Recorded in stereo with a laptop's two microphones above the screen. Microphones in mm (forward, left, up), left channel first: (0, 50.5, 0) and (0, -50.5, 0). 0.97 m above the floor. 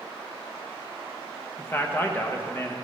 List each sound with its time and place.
1.6 s a man speaking: 20° left (ahead or behind), 0.8 m